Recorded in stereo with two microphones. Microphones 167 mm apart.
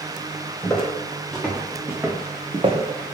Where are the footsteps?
10° left (ahead or behind), 1.7 m; by 3.1 s 60° right (ahead or behind), 0.7 m.